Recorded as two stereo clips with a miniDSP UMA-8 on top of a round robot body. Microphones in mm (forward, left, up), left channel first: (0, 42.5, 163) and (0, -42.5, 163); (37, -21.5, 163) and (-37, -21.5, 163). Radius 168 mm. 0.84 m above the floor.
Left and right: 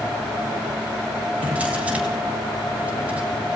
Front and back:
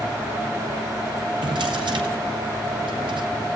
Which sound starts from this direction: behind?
A drawer, at 1.4 s.